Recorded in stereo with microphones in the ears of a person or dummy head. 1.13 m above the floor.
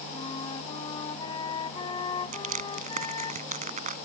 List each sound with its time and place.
0.1 s a flute: 25° left (ahead or behind)
2.3 s crushing: 40° right (ahead or behind)